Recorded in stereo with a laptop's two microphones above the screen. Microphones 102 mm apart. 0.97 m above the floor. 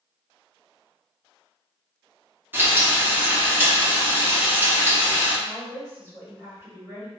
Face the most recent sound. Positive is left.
turn(degrees=-25)  # may be behind; listen again after turning